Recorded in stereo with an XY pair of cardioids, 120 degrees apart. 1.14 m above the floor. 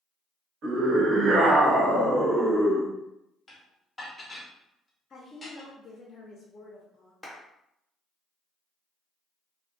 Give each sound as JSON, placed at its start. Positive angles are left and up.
{"t": 0.6, "sound": "a scream", "azimuth_deg": -60, "distance_m": 1.2}
{"t": 3.5, "sound": "dishes clattering", "azimuth_deg": 15, "distance_m": 0.9}
{"t": 5.1, "sound": "a woman speaking", "azimuth_deg": 35, "distance_m": 0.6}
{"t": 7.2, "sound": "a clap", "azimuth_deg": 10, "distance_m": 0.9}